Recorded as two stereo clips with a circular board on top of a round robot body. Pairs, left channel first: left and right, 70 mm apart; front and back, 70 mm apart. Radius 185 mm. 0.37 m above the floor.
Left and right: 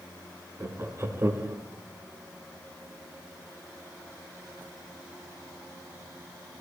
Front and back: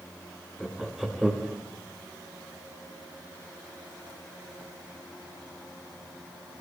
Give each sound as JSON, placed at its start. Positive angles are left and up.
{"t": 0.6, "sound": "laughter", "azimuth_deg": -90, "distance_m": 1.2}